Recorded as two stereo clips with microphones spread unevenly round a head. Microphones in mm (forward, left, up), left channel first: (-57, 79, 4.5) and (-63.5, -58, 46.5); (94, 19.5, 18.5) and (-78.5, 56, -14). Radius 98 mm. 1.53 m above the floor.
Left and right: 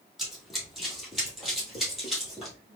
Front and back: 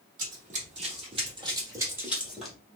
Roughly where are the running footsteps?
Behind.